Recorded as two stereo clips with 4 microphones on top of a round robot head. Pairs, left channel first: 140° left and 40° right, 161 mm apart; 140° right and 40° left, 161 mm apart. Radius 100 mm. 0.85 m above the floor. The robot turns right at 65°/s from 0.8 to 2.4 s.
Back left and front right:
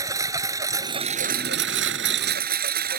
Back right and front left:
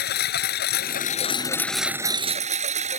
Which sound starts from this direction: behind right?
A lawn mower, at 0.0 s.